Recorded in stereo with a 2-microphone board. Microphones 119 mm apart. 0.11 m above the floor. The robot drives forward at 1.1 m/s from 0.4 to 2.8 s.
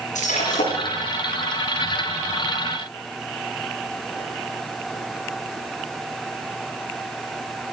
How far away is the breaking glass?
About 6.5 m.